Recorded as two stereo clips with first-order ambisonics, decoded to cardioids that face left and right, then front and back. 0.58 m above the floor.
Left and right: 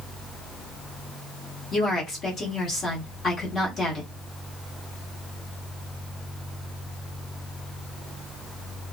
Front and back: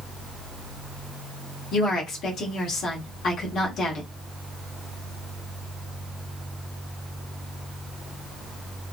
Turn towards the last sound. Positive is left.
turn(degrees=35)